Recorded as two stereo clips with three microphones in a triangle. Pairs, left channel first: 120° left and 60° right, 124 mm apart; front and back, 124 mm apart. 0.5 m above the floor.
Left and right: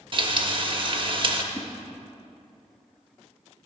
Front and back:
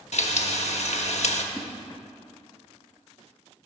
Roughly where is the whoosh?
Right.